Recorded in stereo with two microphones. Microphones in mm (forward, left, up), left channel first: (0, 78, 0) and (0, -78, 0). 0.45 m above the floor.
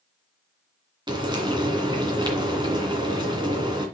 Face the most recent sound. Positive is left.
turn(degrees=-30)  # may be behind; listen again after turning